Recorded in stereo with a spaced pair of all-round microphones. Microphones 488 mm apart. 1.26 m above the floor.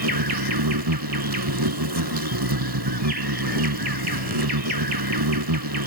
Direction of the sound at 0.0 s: 50° right (ahead or behind).